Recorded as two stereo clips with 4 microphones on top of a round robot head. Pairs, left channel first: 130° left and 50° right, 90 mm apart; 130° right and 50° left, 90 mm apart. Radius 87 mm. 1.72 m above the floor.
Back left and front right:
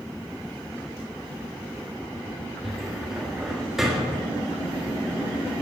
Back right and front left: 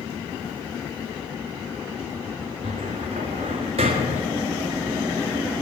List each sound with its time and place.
2.6 s a cupboard door: 35° left, 1.6 m